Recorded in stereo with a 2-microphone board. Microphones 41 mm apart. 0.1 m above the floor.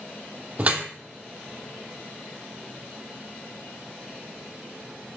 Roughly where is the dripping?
Right.